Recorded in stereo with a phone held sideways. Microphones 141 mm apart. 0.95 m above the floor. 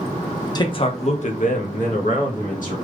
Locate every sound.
0.6 s a man speaking: 30° left (ahead or behind), 0.6 m; by 2.9 s 70° left (ahead or behind), 1.6 m